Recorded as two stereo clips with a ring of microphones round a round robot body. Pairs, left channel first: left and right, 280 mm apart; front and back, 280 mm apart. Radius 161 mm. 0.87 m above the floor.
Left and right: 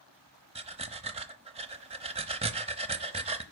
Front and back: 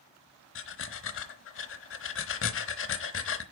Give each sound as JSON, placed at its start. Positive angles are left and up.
{"t": 0.6, "sound": "breathing", "azimuth_deg": -25, "distance_m": 0.9}